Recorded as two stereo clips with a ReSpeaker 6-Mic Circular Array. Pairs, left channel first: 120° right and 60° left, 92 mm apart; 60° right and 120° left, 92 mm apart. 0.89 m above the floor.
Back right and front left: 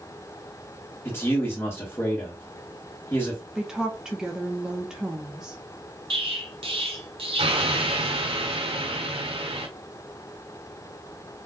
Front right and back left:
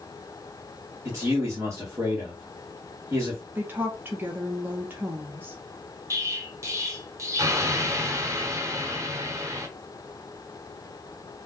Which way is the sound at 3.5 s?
135° left.